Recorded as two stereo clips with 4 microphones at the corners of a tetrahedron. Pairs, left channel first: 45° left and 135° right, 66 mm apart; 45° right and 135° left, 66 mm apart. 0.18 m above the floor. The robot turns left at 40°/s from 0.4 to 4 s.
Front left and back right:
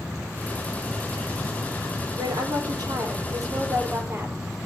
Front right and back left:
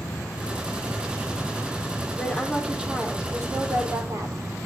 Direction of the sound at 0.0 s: 70° right.